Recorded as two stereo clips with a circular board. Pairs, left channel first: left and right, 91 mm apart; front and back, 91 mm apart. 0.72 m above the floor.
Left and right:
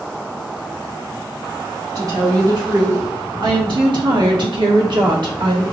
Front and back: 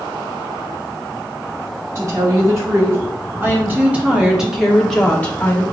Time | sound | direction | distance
1.9 | a woman speaking | 130° right | 2 m